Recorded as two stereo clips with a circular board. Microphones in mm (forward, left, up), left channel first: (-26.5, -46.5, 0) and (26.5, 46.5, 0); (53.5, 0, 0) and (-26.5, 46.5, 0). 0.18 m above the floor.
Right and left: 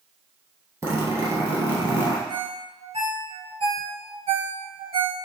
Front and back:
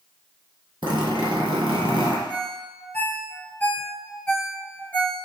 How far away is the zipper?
About 1.6 m.